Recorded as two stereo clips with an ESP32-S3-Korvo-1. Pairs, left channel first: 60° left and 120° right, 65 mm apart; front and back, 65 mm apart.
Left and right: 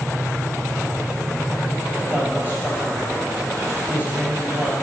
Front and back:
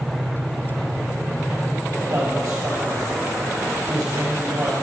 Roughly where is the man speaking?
Behind.